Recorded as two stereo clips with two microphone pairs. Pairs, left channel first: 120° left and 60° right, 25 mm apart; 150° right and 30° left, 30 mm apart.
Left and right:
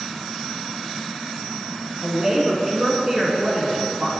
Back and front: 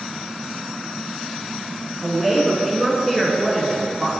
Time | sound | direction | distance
2.0 | a woman speaking | 70° right | 1.2 m